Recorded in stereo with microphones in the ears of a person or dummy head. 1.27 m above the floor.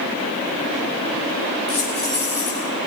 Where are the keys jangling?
35° left (ahead or behind), 6.5 m.